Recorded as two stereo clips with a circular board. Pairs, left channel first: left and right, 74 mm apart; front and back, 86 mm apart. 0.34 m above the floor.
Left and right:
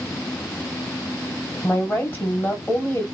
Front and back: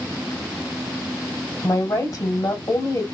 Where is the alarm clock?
No alarm clock in this recording.